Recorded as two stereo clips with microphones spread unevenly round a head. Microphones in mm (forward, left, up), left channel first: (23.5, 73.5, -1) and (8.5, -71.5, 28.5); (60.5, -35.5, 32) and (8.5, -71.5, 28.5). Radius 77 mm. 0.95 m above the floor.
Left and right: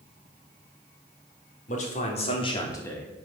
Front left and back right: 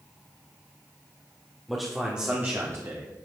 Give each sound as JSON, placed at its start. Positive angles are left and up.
{"t": 1.7, "sound": "a man speaking", "azimuth_deg": 125, "distance_m": 2.5}